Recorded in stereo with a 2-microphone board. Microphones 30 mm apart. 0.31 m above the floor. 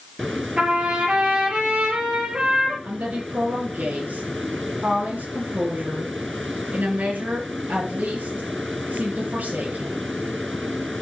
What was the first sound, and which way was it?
A trumpet, 40° right (ahead or behind).